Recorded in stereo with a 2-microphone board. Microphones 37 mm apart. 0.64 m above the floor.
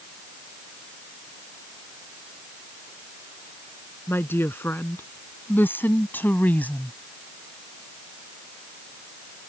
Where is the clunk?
No clunk in this recording.